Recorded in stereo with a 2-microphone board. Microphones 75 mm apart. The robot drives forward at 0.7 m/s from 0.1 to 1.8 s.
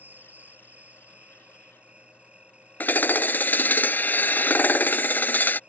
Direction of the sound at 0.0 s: 25° right (ahead or behind).